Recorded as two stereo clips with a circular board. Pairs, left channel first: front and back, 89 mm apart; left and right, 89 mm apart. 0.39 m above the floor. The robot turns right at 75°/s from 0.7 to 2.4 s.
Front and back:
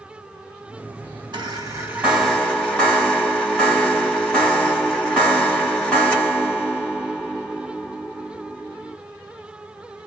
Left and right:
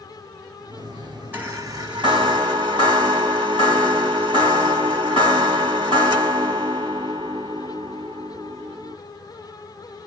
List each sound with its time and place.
1.3 s a chime: 160° right, 1.9 m; by 9.0 s 80° right, 1.9 m